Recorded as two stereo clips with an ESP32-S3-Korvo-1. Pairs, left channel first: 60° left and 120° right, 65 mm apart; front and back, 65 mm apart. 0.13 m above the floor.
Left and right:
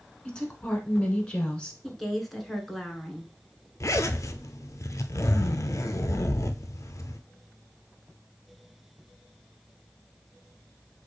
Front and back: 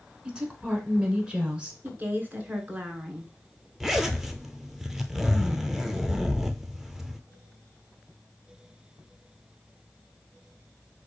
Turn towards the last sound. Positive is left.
turn(degrees=95)